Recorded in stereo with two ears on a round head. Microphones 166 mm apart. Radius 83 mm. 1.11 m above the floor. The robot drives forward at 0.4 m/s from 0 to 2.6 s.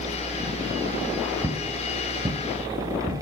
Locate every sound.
1.4 s footsteps: 15° right (ahead or behind), 1.1 m; by 3.1 s 25° right (ahead or behind), 1.5 m